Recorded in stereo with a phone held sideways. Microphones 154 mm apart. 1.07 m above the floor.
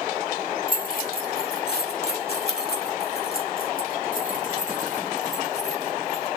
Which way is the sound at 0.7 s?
60° left (ahead or behind).